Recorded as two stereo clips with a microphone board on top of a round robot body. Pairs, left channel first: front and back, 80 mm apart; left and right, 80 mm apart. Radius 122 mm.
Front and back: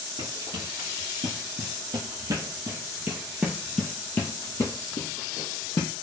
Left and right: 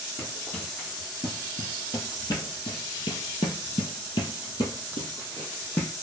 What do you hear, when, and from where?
0.2 s running footsteps: 160° left, 1.9 m; by 5.9 s 25° left, 1.4 m